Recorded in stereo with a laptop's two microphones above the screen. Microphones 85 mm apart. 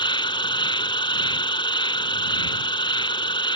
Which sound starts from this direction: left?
An insect, at 0.0 s.